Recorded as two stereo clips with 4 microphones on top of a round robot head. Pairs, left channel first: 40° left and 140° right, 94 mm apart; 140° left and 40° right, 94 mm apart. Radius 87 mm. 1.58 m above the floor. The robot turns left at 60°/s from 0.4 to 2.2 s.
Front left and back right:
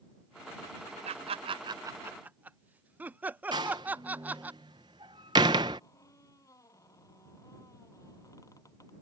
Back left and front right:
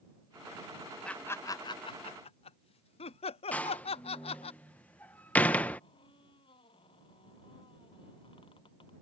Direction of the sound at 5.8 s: 100° left.